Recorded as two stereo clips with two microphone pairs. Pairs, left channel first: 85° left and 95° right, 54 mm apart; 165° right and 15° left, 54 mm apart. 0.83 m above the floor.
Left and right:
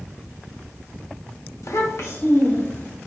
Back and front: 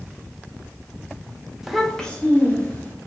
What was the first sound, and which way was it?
A child speaking, 100° left.